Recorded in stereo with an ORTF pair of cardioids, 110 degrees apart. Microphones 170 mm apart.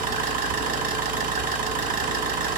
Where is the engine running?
55° right, 0.8 m.